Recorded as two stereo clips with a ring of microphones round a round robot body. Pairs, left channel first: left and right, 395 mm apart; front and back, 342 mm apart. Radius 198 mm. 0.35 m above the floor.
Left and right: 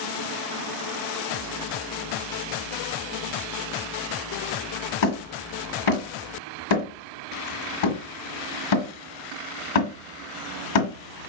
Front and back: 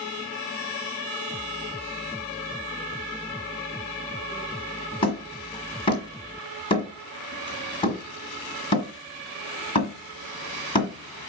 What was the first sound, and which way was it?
Hammering, 75° left.